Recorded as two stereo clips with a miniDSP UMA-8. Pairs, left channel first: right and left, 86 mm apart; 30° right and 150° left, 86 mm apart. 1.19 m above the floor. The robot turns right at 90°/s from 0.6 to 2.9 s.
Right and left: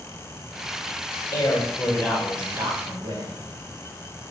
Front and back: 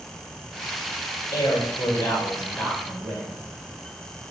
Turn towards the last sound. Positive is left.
turn(degrees=55)